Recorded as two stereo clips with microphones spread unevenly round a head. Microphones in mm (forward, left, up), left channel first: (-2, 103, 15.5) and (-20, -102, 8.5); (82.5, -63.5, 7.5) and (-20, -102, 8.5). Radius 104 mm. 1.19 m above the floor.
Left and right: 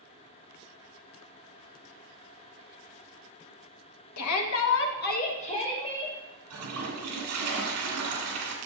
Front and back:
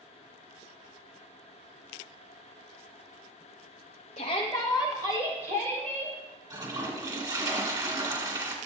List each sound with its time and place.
4.2 s a shout: 70° left, 1.2 m; by 6.2 s 160° left, 2.5 m
6.5 s a toilet flushing: 110° right, 2 m